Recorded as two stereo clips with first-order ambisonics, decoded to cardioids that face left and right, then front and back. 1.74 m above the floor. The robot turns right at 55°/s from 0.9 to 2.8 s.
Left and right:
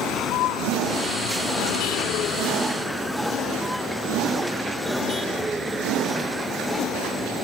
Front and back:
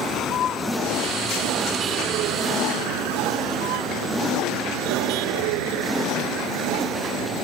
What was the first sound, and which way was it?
A vehicle, 50° left.